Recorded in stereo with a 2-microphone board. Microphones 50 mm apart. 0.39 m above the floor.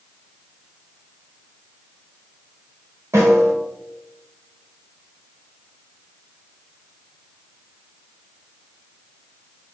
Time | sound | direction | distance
3.1 | a snare drum | 65° right (ahead or behind) | 0.9 m